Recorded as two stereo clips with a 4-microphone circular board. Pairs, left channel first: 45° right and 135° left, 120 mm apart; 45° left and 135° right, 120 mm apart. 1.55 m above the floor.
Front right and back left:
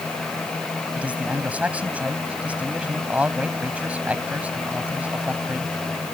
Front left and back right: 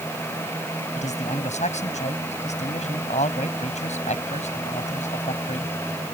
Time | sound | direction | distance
0.9 | a man speaking | 55° left | ?